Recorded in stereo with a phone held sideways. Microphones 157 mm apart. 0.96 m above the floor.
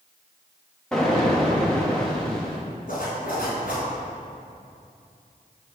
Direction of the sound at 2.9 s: 60° left (ahead or behind).